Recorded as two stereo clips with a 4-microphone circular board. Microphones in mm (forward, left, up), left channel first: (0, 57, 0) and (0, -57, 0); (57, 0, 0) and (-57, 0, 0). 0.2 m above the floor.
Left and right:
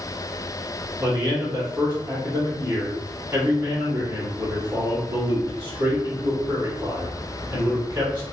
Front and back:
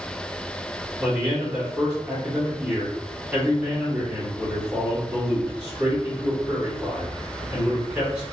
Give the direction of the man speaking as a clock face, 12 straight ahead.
4 o'clock.